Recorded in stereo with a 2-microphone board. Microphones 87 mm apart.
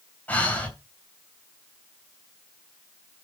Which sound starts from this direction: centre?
Breathing, at 0.3 s.